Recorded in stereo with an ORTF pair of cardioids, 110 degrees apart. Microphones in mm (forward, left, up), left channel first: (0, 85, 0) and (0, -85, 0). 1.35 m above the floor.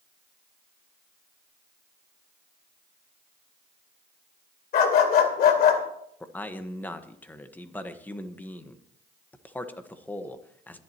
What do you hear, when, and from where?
4.7 s a dog barking: 65° left, 2.5 m
6.2 s a man speaking: 10° left, 1.3 m